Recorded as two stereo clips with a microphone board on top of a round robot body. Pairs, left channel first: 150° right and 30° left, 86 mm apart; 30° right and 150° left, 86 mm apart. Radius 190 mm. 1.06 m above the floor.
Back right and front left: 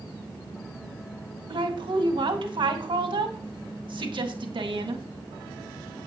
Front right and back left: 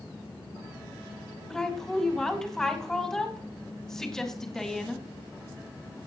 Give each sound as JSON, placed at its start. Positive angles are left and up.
{"t": 1.5, "sound": "a woman speaking", "azimuth_deg": 55, "distance_m": 2.0}